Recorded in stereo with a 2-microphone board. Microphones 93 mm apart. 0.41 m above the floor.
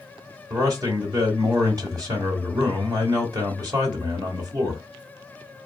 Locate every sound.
0.5 s a man speaking: 40° right (ahead or behind), 1.1 m